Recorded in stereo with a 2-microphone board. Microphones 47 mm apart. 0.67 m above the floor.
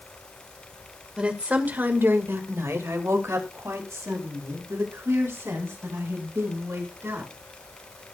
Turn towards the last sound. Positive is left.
turn(degrees=-70)  # may be behind; listen again after turning